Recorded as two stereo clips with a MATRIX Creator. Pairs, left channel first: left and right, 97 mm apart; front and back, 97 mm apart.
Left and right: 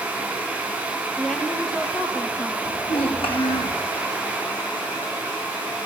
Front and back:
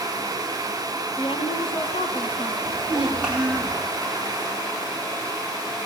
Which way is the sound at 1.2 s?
5° left.